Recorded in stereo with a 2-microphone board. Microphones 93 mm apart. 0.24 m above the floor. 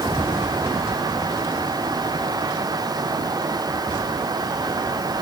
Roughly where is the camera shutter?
No camera shutter in this recording.